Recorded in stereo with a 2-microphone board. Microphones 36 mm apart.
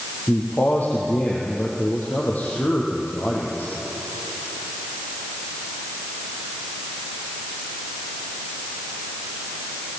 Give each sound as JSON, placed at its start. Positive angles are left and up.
{"t": 0.3, "sound": "a man speaking", "side_deg": 50, "distance_m": 4.0}